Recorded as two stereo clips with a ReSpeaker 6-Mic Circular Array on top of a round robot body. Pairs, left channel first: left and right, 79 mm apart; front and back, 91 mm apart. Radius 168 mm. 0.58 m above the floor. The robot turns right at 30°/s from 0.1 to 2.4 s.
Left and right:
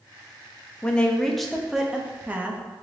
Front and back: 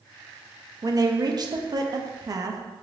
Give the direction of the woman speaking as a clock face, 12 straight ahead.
7 o'clock.